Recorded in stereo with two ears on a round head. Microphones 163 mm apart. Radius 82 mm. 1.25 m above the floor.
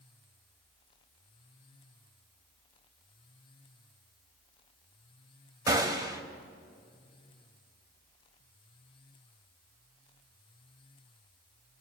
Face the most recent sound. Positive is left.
turn(degrees=-20)  # may be behind; listen again after turning